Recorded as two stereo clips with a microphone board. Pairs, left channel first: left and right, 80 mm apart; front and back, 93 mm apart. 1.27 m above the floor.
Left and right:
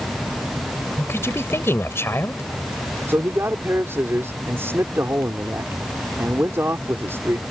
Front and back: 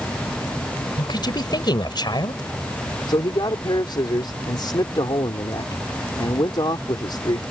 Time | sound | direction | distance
1.0 | a woman speaking | 35° left | ?
3.1 | a man speaking | 30° right | ?